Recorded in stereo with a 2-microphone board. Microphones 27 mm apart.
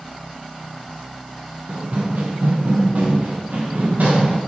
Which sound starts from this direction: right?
Running footsteps, at 1.7 s.